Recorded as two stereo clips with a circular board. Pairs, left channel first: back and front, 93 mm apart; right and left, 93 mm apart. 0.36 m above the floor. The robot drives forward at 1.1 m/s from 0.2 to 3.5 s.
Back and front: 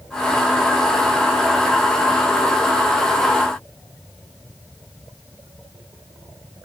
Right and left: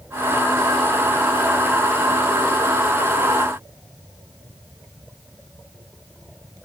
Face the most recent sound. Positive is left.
No sound to turn to.